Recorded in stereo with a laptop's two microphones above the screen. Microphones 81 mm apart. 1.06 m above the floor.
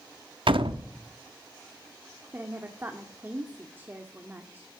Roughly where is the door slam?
Right.